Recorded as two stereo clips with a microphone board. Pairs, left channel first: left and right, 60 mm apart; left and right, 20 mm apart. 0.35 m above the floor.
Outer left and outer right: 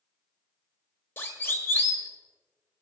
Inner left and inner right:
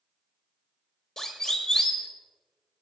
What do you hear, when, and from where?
1.2 s a siren: 35° left (ahead or behind), 2 m